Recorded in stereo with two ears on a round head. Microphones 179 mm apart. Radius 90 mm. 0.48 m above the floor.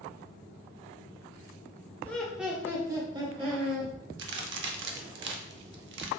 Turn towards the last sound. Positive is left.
turn(degrees=-60)  # may be behind; listen again after turning